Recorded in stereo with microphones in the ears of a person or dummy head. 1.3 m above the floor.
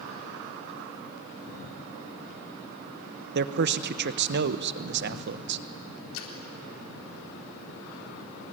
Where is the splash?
75° left (ahead or behind), 4 m.